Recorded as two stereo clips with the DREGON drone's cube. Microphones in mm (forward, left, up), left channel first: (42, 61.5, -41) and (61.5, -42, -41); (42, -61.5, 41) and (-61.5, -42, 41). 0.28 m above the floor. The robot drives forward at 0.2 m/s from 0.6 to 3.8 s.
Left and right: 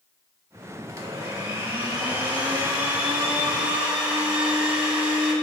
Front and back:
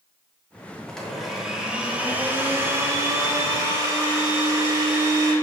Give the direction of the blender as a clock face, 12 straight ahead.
3 o'clock.